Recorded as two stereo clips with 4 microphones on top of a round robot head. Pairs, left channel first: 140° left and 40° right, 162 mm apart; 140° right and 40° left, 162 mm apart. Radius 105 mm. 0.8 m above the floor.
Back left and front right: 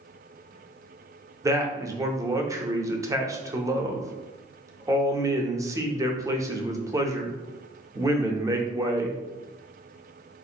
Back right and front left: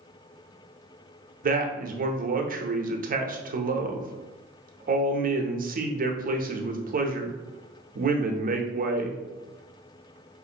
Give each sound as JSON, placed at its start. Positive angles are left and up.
{"t": 1.4, "sound": "a man speaking", "azimuth_deg": 25, "distance_m": 0.7}